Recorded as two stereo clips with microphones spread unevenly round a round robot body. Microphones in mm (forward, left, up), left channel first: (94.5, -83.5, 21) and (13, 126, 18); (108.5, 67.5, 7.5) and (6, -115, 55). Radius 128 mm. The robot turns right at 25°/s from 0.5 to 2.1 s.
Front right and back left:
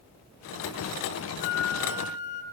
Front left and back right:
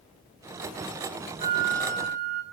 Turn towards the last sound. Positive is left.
turn(degrees=175)